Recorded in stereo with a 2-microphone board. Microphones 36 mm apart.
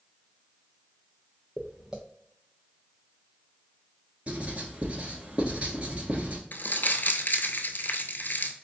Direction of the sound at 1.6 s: 20° right (ahead or behind).